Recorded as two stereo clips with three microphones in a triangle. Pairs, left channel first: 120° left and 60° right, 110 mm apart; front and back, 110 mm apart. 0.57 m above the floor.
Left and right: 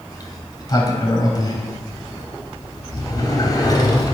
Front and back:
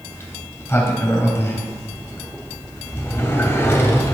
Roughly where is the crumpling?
I don't hear crumpling.